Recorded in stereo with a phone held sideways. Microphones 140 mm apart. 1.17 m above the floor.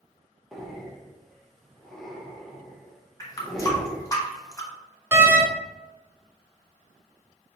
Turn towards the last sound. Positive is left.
turn(degrees=-15)  # may be behind; listen again after turning